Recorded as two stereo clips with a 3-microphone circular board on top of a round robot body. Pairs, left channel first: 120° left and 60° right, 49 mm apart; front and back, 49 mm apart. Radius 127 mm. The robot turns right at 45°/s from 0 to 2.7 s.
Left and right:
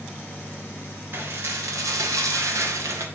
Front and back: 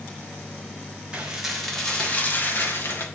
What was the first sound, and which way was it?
Dishes clattering, 110° right.